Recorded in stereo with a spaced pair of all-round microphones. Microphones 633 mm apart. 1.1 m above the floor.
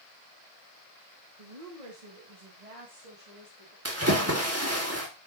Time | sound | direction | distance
1.4 | a woman speaking | 75° right (ahead or behind) | 1.6 m
3.9 | a splash | 25° right (ahead or behind) | 2.5 m